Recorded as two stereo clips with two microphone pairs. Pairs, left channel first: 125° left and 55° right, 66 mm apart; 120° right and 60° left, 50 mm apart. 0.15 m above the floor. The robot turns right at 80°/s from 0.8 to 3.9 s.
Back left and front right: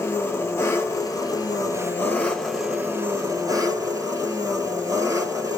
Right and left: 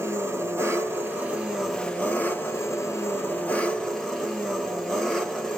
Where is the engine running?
75° left, 1.2 m; by 5.6 s 35° right, 1.2 m.